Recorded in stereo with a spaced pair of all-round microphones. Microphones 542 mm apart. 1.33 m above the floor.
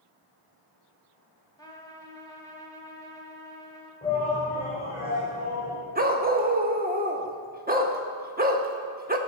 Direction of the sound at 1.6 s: 10° left (ahead or behind).